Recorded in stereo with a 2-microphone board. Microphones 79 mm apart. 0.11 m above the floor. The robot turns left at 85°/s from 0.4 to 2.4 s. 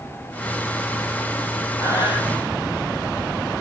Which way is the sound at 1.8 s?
140° left.